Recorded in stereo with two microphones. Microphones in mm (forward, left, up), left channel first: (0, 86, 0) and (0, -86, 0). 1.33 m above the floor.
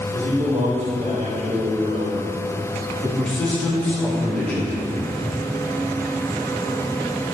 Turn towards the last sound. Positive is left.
turn(degrees=5)  # may be behind; listen again after turning